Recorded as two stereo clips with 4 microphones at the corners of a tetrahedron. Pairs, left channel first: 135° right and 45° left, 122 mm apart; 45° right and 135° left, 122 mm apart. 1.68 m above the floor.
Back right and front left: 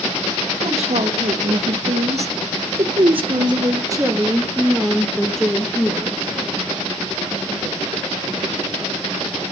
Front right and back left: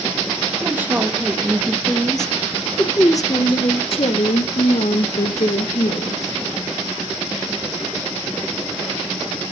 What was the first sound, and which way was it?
A woman speaking, 60° left.